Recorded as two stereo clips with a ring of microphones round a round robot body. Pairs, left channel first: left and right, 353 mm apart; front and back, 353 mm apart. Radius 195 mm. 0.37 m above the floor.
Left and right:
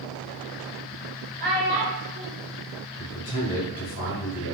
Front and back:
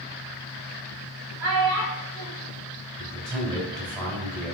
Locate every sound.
1.4 s a child speaking: 150° right, 1.3 m
3.0 s a man speaking: 110° left, 1.3 m